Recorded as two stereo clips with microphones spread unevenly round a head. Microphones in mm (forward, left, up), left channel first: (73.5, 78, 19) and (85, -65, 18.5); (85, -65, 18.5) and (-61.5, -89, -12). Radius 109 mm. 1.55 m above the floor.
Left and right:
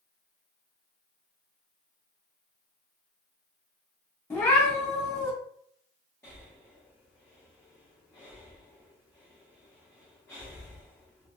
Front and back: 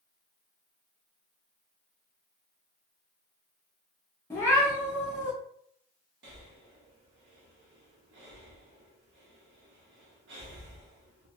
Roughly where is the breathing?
Behind.